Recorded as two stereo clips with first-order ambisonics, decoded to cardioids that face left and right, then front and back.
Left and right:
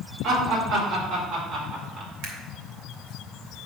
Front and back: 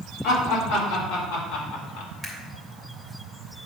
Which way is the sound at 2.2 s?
80° right.